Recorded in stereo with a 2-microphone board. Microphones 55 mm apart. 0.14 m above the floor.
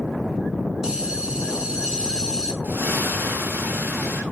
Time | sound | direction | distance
0.8 | a bell | 15° right (ahead or behind) | 1.5 m
2.6 | a splash | 30° right (ahead or behind) | 5.5 m